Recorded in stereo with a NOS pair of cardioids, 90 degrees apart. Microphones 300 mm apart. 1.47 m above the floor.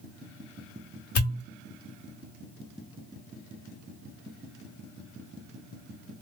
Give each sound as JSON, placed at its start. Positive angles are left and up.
{"t": 1.1, "sound": "a pop", "azimuth_deg": 50, "distance_m": 1.1}